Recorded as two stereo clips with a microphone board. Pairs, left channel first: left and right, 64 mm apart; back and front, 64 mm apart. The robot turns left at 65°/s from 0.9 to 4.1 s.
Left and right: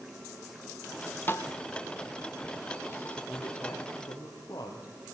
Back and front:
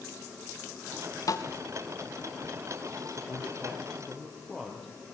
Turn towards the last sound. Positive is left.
turn(degrees=95)